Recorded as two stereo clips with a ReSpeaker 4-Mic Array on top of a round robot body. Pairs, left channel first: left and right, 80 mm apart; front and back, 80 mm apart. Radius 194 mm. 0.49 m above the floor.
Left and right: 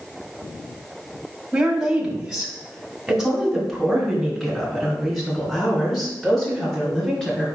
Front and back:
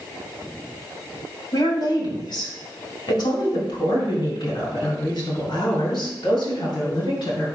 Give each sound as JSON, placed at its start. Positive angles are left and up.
{"t": 1.5, "sound": "a woman speaking", "azimuth_deg": -5, "distance_m": 2.5}